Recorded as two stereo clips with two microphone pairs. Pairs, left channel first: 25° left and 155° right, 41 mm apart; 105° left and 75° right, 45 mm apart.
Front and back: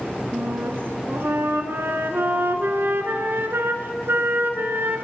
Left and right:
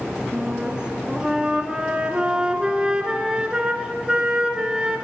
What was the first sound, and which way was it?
A flute, 140° right.